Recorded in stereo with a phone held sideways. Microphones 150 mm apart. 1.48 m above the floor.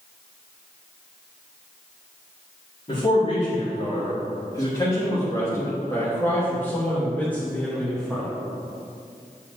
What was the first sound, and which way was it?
A man speaking, 45° left (ahead or behind).